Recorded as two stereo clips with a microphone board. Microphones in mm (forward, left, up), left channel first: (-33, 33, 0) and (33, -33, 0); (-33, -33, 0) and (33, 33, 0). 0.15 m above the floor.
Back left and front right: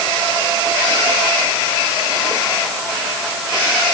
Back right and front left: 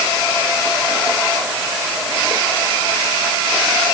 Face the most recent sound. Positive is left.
No sound to turn to.